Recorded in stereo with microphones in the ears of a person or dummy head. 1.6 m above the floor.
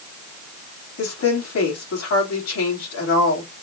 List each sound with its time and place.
1.0 s a woman speaking: 60° left (ahead or behind), 4 m